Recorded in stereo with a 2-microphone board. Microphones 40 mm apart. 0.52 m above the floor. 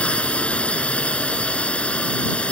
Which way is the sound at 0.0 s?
35° left (ahead or behind).